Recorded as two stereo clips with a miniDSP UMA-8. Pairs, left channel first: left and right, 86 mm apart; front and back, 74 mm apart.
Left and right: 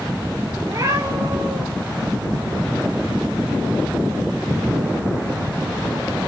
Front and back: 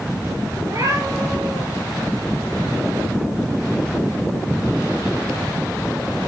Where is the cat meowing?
140° right, 3 m; by 1.6 s 145° right, 3.5 m.